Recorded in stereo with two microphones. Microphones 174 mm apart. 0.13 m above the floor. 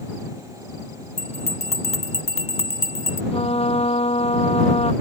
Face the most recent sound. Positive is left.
turn(degrees=35)  # may be behind; listen again after turning